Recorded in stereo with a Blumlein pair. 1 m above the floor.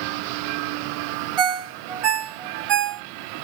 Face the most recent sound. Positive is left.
turn(degrees=-30)